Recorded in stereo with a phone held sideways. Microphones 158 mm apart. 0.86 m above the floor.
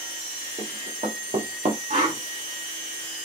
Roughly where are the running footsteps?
Right.